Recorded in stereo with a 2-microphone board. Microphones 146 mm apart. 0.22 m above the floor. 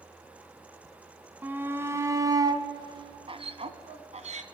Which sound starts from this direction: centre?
A shout, at 1.4 s.